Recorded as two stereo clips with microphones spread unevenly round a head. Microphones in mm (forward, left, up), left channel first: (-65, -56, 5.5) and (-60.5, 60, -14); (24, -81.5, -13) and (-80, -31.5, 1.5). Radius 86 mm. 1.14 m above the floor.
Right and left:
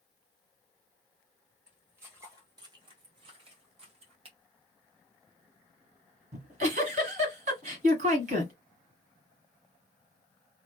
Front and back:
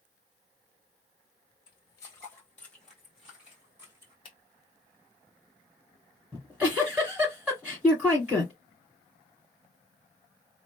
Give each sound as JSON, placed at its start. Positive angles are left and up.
{"t": 1.7, "sound": "footsteps", "azimuth_deg": 0, "distance_m": 1.3}
{"t": 4.2, "sound": "a finger snap", "azimuth_deg": 35, "distance_m": 0.7}
{"t": 6.3, "sound": "a giggle", "azimuth_deg": 80, "distance_m": 1.7}